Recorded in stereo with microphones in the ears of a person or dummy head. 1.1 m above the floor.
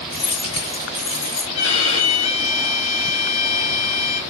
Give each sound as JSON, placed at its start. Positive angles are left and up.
{"t": 0.1, "sound": "keys jangling", "side_deg": 30, "distance_m": 0.8}
{"t": 1.5, "sound": "a violin", "side_deg": 35, "distance_m": 2.5}